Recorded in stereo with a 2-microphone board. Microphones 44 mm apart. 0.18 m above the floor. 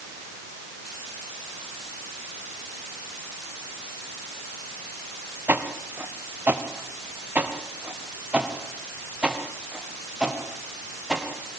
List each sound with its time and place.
5.5 s footsteps: 55° right (ahead or behind), 2.5 m; by 11.2 s 15° right (ahead or behind), 5.5 m